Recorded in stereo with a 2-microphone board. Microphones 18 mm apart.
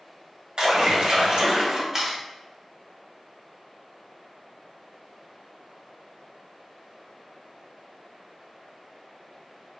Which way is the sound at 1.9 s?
25° right (ahead or behind).